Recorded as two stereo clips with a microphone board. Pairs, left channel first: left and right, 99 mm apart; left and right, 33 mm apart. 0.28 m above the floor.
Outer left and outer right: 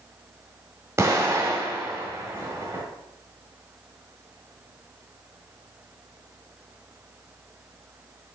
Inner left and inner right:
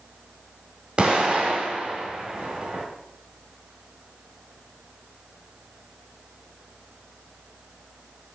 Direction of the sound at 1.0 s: 30° right (ahead or behind).